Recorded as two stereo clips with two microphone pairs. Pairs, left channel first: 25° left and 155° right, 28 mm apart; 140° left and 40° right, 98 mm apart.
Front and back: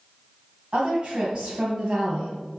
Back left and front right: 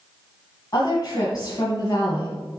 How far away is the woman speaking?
About 1.8 m.